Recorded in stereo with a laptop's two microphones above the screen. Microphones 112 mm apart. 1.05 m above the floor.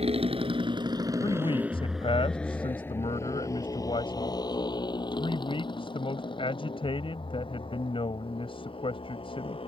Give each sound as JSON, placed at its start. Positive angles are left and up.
{"t": 0.0, "sound": "a motorcycle", "side_deg": -65}
{"t": 1.2, "sound": "a man speaking", "side_deg": 50}